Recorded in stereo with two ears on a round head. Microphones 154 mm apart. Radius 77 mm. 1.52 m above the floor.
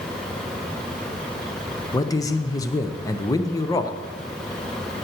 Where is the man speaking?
20° left (ahead or behind), 0.8 m.